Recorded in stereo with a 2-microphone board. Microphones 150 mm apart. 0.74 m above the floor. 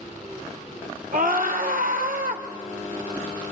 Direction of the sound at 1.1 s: 70° right (ahead or behind).